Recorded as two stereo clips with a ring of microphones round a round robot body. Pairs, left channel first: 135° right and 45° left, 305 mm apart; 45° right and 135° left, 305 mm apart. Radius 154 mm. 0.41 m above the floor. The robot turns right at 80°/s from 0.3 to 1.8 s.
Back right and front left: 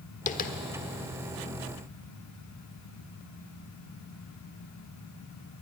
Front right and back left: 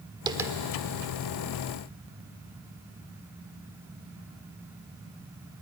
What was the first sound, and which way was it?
Tapping, 165° right.